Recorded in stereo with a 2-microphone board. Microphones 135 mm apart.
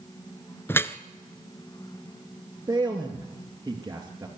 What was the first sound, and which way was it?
Dripping, 15° left (ahead or behind).